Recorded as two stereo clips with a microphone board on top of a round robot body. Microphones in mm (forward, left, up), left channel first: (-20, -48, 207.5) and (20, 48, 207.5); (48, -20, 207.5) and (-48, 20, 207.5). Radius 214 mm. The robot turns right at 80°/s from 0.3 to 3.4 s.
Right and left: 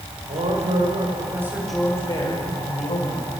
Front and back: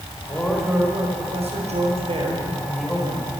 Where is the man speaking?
45° left, 4.5 m; by 3.3 s 75° right, 4.5 m.